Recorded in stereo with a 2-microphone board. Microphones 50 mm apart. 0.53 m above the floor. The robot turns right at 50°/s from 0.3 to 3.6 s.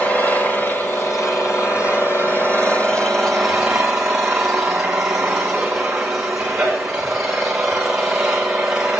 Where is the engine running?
20° left, 7 m; by 9.0 s 175° right, 7 m.